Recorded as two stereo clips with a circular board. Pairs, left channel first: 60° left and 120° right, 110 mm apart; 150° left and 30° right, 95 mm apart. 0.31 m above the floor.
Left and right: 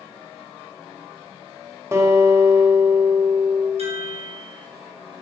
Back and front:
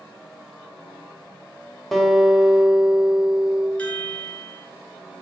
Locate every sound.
1.9 s a guitar: 125° right, 1.0 m
3.8 s a chime: 135° right, 2 m